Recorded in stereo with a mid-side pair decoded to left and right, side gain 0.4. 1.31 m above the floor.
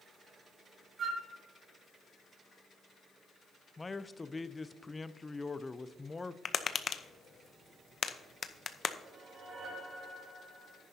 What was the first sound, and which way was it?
A flute, 65° right.